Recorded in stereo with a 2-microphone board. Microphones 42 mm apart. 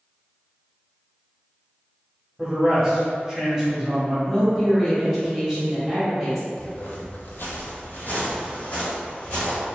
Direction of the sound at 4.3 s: 5° right (ahead or behind).